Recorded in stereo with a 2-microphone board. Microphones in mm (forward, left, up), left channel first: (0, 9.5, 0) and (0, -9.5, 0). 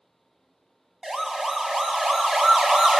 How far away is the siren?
About 2.5 m.